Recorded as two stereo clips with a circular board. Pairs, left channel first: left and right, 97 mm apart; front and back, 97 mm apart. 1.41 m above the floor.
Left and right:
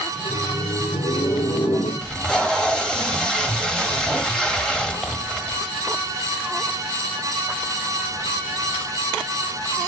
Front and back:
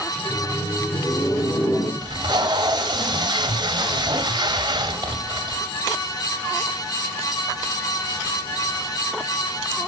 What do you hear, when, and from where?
0.2 s laughter: 70° left, 1.6 m; by 1.9 s 50° left, 2.5 m
2.0 s tape being pulled: 170° left, 1.5 m